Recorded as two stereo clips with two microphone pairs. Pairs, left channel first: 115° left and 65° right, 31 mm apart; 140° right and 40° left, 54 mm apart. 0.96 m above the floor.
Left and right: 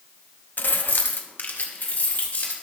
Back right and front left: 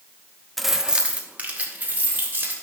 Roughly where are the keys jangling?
Behind left.